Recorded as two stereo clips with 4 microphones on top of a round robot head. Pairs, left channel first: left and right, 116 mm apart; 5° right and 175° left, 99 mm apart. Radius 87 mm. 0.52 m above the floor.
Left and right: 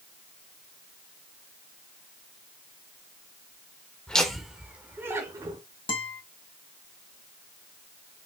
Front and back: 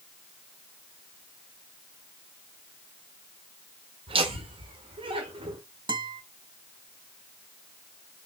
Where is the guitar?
135° left, 2.5 m.